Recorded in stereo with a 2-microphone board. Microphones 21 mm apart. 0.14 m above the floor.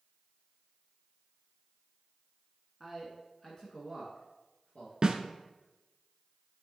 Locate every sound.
2.8 s a man speaking: centre (ahead or behind), 1.3 m; by 4.9 s 50° left (ahead or behind), 2.5 m
5.0 s a snare drum: 30° right (ahead or behind), 1.0 m